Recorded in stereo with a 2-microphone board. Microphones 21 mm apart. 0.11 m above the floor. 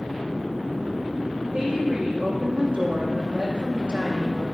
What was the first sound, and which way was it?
A woman speaking, 55° right (ahead or behind).